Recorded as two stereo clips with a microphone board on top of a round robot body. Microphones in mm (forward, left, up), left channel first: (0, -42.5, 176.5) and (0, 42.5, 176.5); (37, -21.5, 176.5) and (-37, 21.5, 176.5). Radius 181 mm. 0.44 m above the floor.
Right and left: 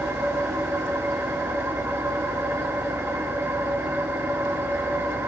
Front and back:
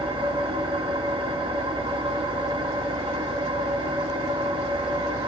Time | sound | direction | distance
0.0 | an engine running | 150° left | 3 m